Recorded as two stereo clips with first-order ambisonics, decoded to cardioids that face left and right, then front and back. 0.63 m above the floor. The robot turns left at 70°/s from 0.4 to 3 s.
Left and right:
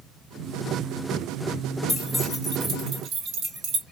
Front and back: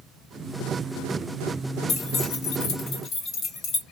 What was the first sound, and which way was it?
Keys jangling, 15° left.